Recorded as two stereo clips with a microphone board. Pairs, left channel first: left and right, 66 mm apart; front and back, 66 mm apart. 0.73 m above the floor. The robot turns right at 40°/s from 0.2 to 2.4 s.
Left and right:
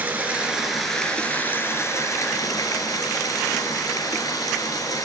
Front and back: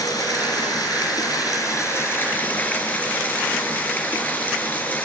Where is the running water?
25° right, 3 m; by 5.0 s 65° left, 3 m.